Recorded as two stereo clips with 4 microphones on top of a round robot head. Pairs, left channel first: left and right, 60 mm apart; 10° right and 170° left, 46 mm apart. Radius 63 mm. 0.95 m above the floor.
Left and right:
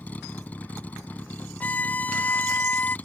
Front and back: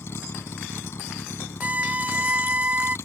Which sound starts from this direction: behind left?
A violin, at 1.6 s.